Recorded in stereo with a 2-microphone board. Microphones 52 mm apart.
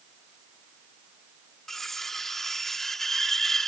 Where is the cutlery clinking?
5° left (ahead or behind).